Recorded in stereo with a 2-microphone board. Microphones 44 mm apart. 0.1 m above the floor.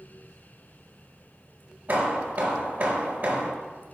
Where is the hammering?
40° right (ahead or behind), 0.8 m.